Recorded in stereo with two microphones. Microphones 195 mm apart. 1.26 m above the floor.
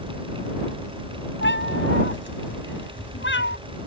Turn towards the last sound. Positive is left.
turn(degrees=75)  # may be behind; listen again after turning